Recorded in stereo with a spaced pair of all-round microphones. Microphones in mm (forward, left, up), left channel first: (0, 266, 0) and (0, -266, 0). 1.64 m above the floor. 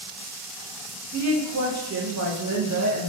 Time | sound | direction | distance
1.1 | a woman speaking | 30° right (ahead or behind) | 1.0 m